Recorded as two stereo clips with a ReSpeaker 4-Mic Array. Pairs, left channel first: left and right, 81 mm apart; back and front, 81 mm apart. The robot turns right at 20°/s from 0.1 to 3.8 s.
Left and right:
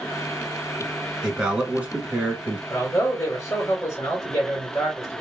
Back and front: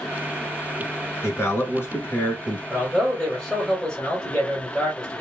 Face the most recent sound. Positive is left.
turn(degrees=105)